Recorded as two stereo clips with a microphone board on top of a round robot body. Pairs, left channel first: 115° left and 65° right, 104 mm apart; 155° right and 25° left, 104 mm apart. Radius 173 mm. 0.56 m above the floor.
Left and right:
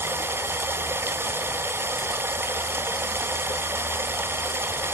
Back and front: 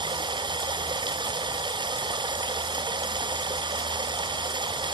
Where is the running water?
5° right, 0.7 m.